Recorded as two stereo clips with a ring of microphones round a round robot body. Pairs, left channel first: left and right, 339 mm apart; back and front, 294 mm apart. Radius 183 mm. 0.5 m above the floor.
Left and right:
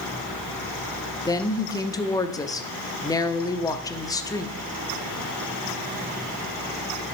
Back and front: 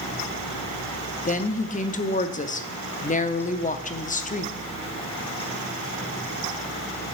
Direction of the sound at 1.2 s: 155° left.